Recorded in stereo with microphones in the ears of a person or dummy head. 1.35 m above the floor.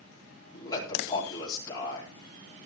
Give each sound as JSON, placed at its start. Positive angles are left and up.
{"t": 0.5, "sound": "a man speaking", "side_deg": 25, "distance_m": 9.0}